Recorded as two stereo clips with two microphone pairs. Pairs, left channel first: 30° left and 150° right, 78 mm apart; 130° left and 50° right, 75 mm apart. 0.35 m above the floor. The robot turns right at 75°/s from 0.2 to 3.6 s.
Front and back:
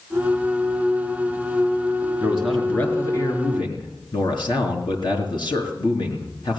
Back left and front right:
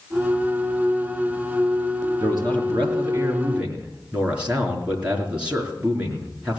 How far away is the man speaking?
About 4 m.